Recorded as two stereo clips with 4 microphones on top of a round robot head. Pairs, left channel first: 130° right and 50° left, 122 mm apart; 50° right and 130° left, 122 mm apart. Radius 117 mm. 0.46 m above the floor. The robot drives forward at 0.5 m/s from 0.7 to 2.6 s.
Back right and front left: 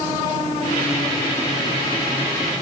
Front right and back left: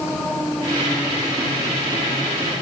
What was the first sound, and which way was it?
Only background noise.